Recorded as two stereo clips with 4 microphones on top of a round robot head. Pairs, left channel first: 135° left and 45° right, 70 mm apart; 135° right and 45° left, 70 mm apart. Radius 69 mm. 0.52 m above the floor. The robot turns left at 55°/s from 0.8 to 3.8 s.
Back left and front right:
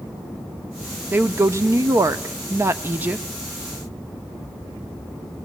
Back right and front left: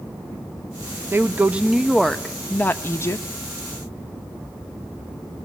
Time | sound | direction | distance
1.1 | a woman speaking | 5° left | 0.8 m